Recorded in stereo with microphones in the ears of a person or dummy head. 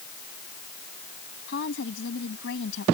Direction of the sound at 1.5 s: 75° left (ahead or behind).